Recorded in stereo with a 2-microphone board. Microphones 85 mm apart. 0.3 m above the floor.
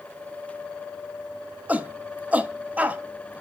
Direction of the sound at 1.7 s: 20° right (ahead or behind).